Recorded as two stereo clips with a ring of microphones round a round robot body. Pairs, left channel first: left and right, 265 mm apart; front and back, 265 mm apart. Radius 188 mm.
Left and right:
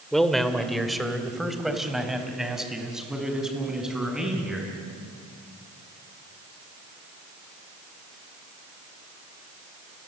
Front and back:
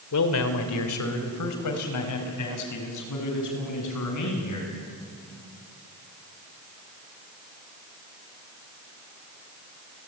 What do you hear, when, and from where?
0.1 s a man speaking: straight ahead, 2.5 m; by 4.7 s 5° right, 8 m